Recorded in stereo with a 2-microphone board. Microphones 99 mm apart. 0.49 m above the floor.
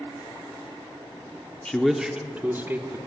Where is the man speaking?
10° left (ahead or behind), 0.7 m; by 3.0 s 25° right (ahead or behind), 1.2 m.